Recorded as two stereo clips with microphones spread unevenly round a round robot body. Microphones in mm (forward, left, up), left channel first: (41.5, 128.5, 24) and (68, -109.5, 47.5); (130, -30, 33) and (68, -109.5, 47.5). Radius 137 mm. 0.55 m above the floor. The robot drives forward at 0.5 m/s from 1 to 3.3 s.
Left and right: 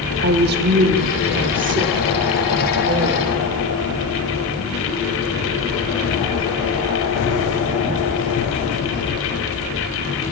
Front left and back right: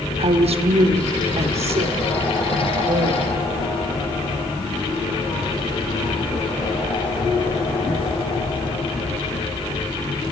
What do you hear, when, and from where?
0.2 s a woman speaking: 130° right, 1.3 m; by 3.3 s 155° right, 2 m